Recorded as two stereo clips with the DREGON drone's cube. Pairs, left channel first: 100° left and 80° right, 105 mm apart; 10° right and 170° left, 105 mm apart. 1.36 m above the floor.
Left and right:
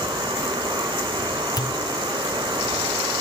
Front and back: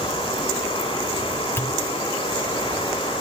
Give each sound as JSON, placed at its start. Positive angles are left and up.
{"t": 0.0, "sound": "running water", "azimuth_deg": -40, "distance_m": 6.5}
{"t": 1.6, "sound": "a pop", "azimuth_deg": 55, "distance_m": 0.5}